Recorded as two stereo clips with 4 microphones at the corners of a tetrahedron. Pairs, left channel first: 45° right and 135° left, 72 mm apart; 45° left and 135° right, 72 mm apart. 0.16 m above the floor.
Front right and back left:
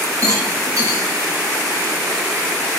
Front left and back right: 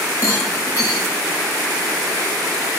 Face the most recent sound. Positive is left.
turn(degrees=90)